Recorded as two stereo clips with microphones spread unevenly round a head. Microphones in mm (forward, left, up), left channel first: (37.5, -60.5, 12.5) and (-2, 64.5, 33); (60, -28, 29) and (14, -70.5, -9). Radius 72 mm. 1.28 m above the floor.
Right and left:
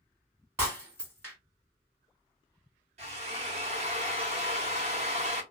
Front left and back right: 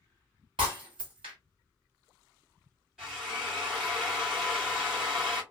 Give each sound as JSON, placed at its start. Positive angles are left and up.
{"t": 0.6, "sound": "breaking glass", "azimuth_deg": 175, "distance_m": 1.6}
{"t": 3.0, "sound": "a drill", "azimuth_deg": 115, "distance_m": 1.1}